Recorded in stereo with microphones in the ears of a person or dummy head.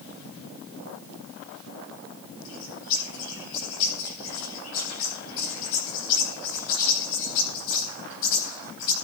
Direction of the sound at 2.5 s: 75° left (ahead or behind).